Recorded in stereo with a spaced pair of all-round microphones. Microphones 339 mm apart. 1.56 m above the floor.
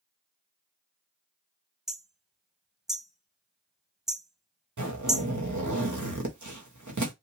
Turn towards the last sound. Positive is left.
turn(degrees=-65)  # may be behind; listen again after turning